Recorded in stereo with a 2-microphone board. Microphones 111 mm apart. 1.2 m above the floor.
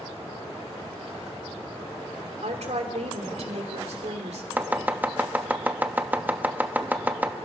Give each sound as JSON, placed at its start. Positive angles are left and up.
{"t": 2.4, "sound": "a woman speaking", "side_deg": -75, "distance_m": 3.0}
{"t": 4.6, "sound": "chopping", "side_deg": -15, "distance_m": 1.1}